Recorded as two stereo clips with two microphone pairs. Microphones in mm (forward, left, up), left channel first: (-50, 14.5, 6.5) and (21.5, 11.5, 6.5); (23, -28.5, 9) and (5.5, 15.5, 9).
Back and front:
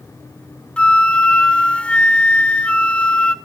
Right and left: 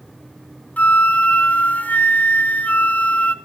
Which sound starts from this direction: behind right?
A flute, at 0.8 s.